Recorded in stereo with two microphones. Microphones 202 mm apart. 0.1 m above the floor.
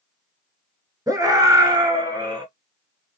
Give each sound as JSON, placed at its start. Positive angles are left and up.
{"t": 1.1, "sound": "a scream", "side_deg": -15, "distance_m": 1.4}